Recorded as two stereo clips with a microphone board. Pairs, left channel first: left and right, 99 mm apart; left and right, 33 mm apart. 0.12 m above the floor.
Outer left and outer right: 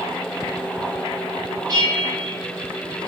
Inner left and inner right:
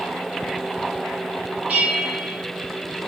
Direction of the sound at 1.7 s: 40° right (ahead or behind).